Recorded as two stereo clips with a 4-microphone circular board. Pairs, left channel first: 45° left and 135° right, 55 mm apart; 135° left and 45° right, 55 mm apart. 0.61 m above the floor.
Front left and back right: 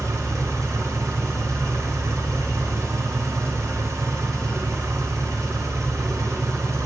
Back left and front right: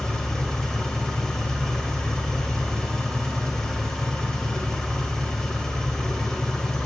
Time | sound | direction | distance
0.0 | an engine running | 145° right | 1.0 m